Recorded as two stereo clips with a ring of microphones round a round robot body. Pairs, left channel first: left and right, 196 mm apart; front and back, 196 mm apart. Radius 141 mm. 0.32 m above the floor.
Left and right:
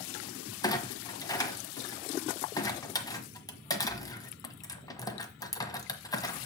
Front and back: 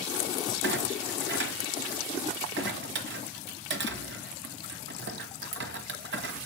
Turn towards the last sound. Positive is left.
turn(degrees=160)